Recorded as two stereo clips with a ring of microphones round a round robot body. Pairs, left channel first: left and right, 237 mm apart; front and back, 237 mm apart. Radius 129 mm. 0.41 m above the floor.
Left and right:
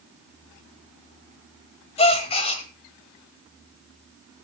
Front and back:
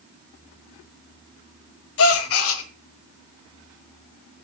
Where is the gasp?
25° left, 1.3 m.